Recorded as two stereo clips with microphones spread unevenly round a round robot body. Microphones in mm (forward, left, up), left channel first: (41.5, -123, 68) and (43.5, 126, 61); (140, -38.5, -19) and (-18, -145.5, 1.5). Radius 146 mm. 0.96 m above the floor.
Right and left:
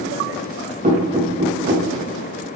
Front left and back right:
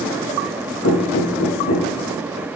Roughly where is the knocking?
Ahead left.